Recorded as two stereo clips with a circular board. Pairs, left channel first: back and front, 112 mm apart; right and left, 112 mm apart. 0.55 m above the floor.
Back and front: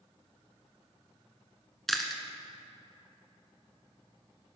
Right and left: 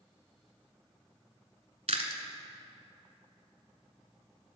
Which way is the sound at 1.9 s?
90° left.